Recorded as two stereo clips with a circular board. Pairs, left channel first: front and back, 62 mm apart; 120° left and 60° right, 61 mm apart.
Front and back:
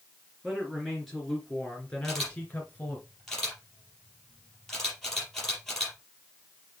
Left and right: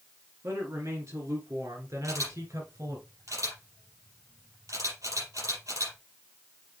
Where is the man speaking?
90° right, 3 m; by 3.0 s 55° right, 3 m.